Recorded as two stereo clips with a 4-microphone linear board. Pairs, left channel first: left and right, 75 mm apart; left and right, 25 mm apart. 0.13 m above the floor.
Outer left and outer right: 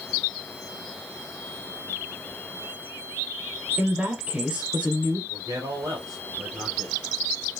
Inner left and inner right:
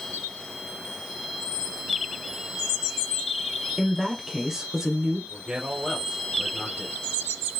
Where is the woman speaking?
20° right (ahead or behind), 1.7 m.